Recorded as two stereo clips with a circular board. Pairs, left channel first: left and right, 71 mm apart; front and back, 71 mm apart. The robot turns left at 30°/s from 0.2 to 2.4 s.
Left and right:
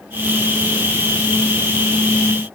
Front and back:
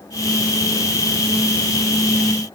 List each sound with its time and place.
Only background noise.